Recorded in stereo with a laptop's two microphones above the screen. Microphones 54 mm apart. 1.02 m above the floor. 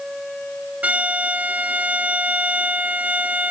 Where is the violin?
30° right (ahead or behind).